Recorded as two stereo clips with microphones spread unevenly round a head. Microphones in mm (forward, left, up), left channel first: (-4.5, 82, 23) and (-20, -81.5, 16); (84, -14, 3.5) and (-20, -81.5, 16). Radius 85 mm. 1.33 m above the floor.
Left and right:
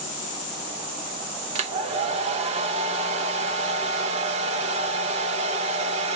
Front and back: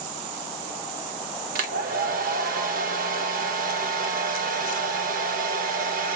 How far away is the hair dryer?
About 0.7 m.